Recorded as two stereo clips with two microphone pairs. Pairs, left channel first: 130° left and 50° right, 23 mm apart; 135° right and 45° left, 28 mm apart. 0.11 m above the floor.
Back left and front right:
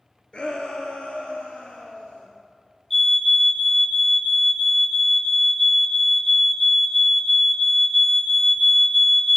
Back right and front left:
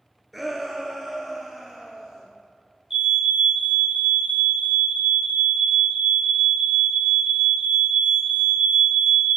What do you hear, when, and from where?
0.3 s a shout: 135° left, 2.5 m; by 2.2 s 130° left, 4.5 m
2.9 s a fire alarm: 75° left, 2.5 m